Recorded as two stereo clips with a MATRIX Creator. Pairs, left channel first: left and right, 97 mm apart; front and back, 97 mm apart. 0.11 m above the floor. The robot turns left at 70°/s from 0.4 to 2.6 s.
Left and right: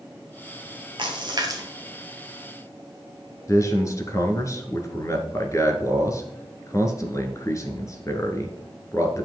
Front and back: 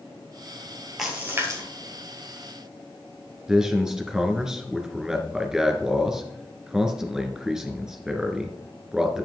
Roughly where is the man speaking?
Left.